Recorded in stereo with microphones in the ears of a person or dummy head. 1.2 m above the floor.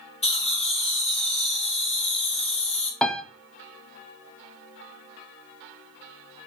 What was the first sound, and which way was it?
Laughter, 35° left (ahead or behind).